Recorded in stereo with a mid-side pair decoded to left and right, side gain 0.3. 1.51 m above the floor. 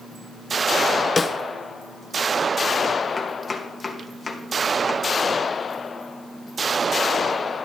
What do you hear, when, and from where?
1.2 s a snare drum: 45° left, 1.3 m
3.2 s chopping: 45° left, 2.5 m